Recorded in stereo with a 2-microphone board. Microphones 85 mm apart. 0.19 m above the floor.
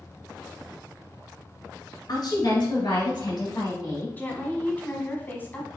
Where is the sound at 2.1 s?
55° left (ahead or behind), 2.5 m; by 4.1 s 65° left (ahead or behind), 4.5 m.